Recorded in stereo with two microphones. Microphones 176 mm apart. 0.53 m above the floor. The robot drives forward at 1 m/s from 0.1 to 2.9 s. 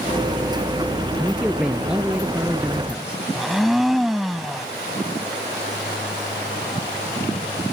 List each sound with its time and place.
1.2 s a man speaking: 5° right (ahead or behind)
3.4 s a blender: centre (ahead or behind)